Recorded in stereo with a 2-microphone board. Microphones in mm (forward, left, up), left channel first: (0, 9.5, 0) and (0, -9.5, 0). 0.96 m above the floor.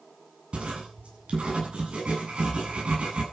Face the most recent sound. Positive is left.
turn(degrees=-70)  # may be behind; listen again after turning